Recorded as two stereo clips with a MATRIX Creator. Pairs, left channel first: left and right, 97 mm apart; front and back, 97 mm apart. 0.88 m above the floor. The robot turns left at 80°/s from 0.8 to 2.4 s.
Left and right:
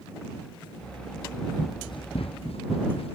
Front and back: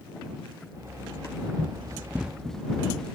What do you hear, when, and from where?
1.6 s running footsteps: 150° left; by 3.1 s 85° left